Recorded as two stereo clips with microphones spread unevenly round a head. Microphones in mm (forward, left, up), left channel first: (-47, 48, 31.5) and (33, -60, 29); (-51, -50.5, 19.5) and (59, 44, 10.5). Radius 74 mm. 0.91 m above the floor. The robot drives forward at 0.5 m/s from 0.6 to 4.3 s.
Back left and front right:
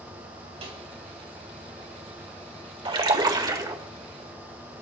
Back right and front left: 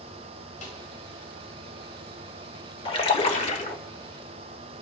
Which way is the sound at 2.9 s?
90° right.